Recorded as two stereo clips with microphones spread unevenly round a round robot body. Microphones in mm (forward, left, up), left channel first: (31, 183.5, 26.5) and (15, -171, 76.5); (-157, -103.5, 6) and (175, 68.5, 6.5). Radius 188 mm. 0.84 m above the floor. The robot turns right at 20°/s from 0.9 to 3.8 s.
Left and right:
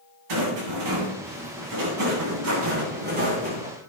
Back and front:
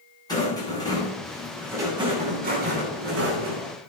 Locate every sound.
0.3 s a rattle: 75° right, 10 m; by 3.7 s 15° right, 10 m